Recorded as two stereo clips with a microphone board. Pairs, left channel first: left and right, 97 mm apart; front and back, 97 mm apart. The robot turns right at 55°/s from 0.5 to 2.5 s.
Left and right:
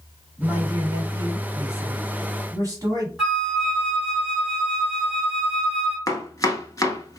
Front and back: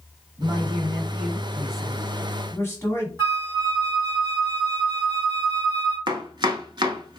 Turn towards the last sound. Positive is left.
turn(degrees=140)